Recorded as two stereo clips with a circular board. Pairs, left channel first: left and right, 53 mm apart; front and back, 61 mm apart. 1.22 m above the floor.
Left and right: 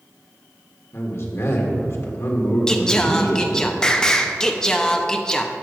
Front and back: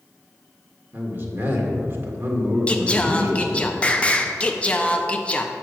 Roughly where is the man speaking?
Behind left.